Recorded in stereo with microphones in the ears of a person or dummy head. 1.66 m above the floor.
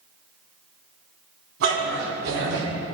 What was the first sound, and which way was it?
A dog barking, 65° right (ahead or behind).